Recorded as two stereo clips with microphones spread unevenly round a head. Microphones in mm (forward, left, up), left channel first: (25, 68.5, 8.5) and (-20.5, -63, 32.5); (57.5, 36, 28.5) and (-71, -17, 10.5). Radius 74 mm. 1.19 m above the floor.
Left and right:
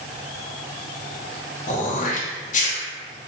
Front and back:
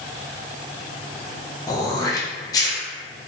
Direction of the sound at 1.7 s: 90° left.